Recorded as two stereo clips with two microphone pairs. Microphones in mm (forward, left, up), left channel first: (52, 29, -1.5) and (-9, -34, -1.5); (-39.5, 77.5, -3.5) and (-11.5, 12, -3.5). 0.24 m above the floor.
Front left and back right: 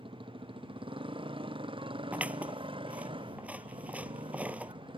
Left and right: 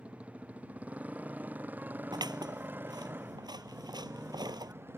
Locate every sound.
0.0 s a motorcycle: 135° right; by 5.0 s 120° right
2.1 s scissors: 60° right